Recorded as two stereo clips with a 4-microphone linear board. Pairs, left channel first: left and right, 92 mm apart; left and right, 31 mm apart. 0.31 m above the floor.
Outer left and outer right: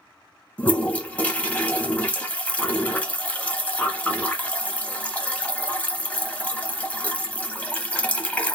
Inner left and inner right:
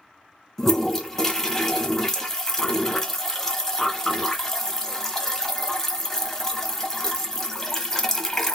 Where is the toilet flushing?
15° left (ahead or behind), 0.7 m.